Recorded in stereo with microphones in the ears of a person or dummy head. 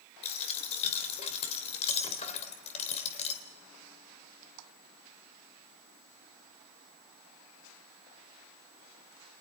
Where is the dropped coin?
35° left (ahead or behind), 2.5 m.